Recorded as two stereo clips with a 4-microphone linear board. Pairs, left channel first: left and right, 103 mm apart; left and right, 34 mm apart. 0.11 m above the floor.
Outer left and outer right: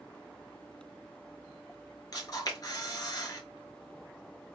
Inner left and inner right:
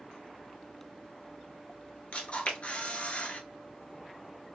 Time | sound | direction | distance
2.1 | a camera shutter | 35° left (ahead or behind) | 1.3 m